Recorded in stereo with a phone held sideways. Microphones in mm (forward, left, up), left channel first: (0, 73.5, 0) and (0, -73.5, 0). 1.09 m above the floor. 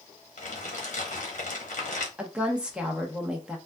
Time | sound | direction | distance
0.4 | crumpling | 60° left (ahead or behind) | 1.0 m
2.2 | a woman speaking | 5° right (ahead or behind) | 0.9 m